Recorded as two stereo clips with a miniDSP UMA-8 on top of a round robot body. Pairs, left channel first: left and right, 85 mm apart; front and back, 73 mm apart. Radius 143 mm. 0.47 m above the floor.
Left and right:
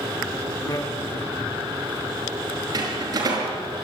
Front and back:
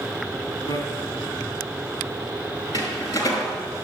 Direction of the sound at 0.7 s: 45° left.